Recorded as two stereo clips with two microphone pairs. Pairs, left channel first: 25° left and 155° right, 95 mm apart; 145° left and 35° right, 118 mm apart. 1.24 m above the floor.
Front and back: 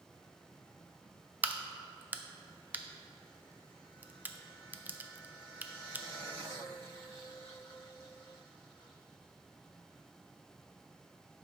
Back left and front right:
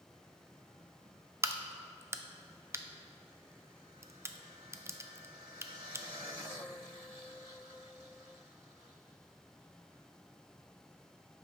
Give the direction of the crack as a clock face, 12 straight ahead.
3 o'clock.